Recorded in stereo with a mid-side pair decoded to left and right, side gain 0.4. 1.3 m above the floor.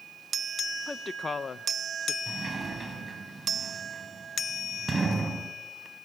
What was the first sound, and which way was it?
A woman speaking, 25° left.